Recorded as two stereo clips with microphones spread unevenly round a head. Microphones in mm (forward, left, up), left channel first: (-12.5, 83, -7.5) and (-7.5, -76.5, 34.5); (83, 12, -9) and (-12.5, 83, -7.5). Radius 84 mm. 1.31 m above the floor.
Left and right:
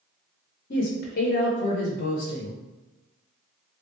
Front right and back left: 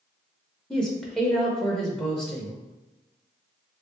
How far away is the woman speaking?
About 0.7 m.